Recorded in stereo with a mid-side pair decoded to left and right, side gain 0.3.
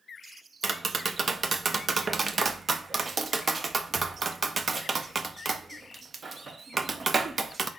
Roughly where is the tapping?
Ahead right.